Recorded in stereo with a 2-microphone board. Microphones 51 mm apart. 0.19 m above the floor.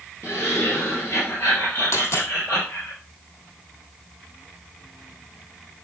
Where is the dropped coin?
60° left (ahead or behind), 2.5 m.